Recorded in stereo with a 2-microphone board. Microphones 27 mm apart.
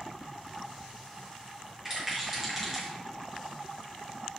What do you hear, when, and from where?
1.9 s a rattle: 15° right (ahead or behind), 5.5 m